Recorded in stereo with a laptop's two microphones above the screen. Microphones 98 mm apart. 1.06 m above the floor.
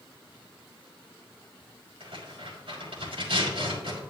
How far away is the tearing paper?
About 5 m.